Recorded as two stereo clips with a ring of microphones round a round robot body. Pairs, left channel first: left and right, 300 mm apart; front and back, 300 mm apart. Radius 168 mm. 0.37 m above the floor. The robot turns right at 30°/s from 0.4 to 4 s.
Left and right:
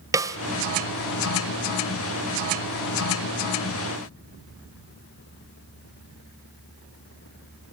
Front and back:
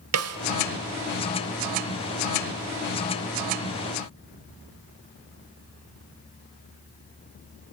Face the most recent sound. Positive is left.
turn(degrees=-60)